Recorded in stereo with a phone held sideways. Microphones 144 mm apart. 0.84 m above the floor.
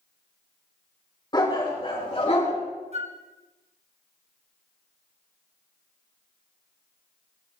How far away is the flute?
About 1.0 m.